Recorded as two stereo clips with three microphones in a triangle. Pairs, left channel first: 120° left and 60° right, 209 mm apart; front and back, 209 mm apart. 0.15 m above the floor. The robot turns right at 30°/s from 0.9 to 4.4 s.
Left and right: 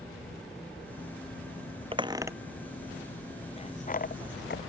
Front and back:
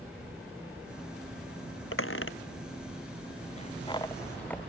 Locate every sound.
1.9 s a squeak: 5° left; by 4.6 s 80° left